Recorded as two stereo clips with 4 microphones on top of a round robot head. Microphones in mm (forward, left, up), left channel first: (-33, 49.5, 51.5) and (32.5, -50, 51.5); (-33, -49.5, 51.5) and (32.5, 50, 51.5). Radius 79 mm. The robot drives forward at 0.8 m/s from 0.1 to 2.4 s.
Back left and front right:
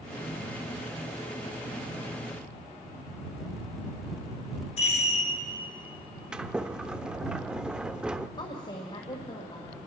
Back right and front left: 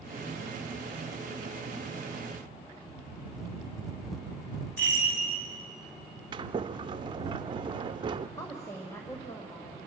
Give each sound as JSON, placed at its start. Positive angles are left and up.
{"t": 4.8, "sound": "a chime", "azimuth_deg": 160, "distance_m": 6.0}
{"t": 6.3, "sound": "a sliding door", "azimuth_deg": 25, "distance_m": 0.5}
{"t": 8.4, "sound": "a woman speaking", "azimuth_deg": 170, "distance_m": 1.9}